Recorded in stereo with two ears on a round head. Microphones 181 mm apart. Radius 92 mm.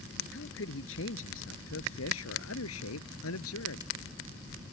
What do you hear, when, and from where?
0.3 s a man speaking: 60° left (ahead or behind); by 3.9 s 80° left